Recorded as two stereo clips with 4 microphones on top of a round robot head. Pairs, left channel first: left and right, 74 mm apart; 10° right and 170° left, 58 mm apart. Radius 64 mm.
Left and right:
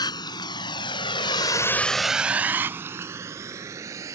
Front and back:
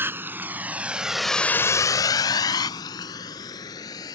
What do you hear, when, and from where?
0.0 s a vehicle: 120° left; by 4.2 s 35° right